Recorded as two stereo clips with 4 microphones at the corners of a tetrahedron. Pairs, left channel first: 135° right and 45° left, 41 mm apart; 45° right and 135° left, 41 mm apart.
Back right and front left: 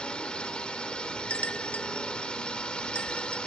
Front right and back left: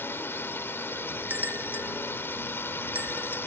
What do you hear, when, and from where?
0.0 s a drone: 70° right
1.3 s a bell: 170° left